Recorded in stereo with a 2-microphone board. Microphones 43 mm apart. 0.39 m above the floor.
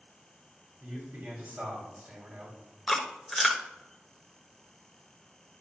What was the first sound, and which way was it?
A man speaking, 50° right (ahead or behind).